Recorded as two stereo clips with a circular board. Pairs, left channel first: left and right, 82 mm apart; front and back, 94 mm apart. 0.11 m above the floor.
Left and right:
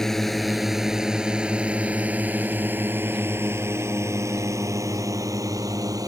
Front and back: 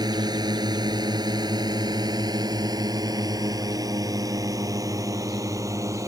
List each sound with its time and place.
0.0 s a drone: 175° left; by 6.1 s 125° right